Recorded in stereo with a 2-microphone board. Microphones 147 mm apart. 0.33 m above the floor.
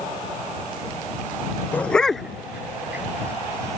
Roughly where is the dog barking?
Centre.